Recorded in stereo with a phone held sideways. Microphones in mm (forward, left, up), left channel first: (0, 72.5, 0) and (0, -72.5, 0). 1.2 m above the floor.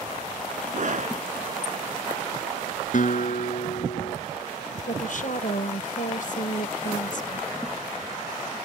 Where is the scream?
55° right (ahead or behind).